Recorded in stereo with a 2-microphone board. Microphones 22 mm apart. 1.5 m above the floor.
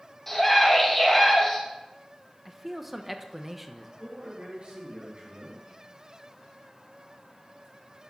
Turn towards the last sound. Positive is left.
turn(degrees=-55)  # may be behind; listen again after turning